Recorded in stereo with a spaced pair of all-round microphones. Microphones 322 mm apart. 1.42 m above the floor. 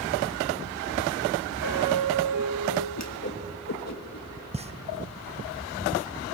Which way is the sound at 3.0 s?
50° left (ahead or behind).